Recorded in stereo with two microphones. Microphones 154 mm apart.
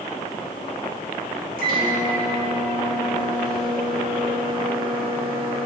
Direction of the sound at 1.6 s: 65° right (ahead or behind).